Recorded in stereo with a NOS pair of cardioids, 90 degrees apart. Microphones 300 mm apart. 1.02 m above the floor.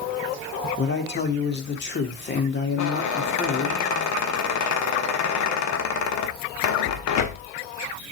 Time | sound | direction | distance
0.8 | a man speaking | 35° left | 2 m
2.8 | a squeak | 70° left | 1.2 m